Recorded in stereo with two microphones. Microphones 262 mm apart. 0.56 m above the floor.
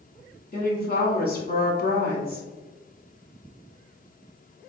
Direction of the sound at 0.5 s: 35° left (ahead or behind).